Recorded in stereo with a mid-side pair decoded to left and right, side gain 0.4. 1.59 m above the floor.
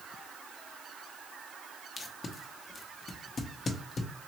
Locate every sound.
2.0 s tape being pulled: 50° left, 0.7 m